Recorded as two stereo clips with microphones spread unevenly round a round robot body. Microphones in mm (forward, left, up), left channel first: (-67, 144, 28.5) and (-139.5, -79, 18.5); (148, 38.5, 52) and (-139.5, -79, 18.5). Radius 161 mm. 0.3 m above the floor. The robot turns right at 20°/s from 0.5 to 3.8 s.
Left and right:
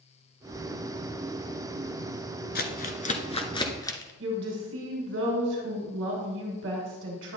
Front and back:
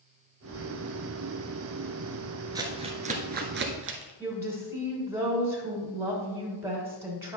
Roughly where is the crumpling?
Behind left.